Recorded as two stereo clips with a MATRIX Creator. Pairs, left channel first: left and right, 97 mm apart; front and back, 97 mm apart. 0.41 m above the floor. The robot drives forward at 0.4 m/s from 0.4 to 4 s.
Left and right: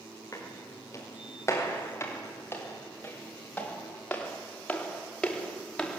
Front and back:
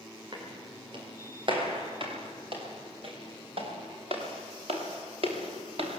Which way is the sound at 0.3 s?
145° left.